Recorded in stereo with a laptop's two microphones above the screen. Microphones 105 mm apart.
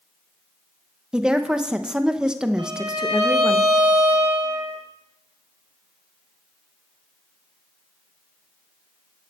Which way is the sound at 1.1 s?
10° right (ahead or behind).